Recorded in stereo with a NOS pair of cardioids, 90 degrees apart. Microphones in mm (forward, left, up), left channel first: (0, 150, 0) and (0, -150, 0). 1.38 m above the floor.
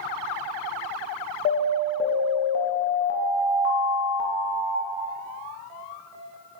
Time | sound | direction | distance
1.4 | an alarm | 40° left | 0.6 m